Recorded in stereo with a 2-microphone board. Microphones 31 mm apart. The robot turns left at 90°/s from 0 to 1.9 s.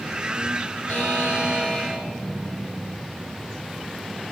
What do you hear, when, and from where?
0.9 s a buzzer: 115° left, 2.5 m; by 2.0 s 20° left, 2.5 m